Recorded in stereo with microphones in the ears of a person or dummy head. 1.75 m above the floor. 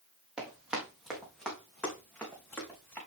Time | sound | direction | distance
0.4 | running footsteps | 5° right (ahead or behind) | 3 m